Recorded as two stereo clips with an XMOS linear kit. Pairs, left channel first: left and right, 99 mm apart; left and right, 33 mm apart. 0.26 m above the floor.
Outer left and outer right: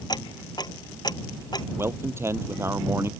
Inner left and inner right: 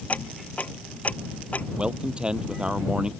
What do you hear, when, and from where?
0.1 s ticking: 45° left (ahead or behind)
1.8 s a man speaking: 25° right (ahead or behind)